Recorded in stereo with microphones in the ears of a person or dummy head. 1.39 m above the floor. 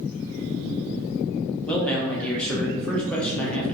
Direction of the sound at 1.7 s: 10° left (ahead or behind).